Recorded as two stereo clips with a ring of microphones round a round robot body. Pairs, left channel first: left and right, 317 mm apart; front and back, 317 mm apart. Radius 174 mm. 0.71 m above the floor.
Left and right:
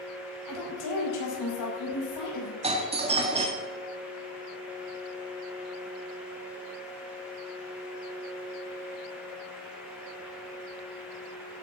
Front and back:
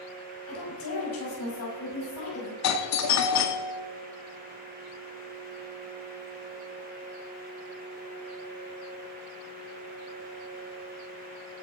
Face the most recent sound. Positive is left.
turn(degrees=-20)